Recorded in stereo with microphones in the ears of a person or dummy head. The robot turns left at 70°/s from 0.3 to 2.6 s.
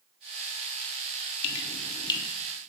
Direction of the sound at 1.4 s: 60° left (ahead or behind).